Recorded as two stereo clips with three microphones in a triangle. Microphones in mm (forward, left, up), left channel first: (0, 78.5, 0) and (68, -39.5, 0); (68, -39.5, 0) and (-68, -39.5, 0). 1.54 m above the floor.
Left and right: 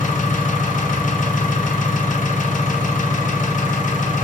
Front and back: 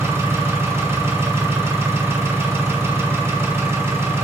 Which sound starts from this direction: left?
An engine running, at 0.0 s.